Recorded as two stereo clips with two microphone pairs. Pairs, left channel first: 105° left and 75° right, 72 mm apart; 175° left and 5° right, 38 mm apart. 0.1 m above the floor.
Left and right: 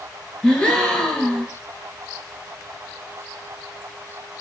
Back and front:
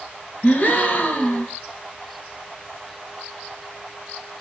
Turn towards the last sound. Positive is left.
turn(degrees=175)